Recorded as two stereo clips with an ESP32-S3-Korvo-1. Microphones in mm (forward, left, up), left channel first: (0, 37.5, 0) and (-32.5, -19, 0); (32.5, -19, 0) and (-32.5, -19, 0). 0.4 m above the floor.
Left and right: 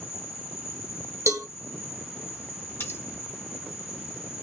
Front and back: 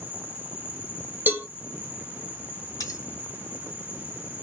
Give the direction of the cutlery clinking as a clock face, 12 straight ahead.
12 o'clock.